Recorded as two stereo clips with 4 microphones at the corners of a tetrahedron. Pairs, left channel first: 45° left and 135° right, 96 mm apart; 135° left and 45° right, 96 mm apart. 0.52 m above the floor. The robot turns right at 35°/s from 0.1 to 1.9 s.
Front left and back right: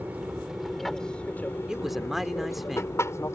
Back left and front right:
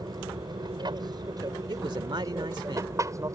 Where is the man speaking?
55° right; by 3.0 s 45° right.